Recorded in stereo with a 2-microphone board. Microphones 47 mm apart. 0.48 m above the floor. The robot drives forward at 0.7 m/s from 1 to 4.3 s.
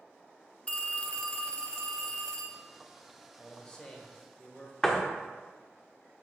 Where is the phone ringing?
25° left (ahead or behind), 0.7 m; by 2.6 s 10° left (ahead or behind), 1.7 m.